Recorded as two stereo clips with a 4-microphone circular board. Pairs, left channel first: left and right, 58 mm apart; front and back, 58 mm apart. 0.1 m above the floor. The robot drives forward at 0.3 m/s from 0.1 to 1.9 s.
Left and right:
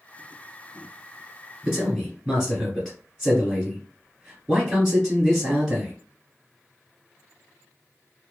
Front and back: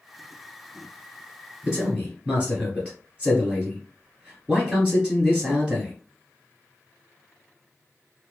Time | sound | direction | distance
1.6 | a man speaking | 155° right | 1.7 m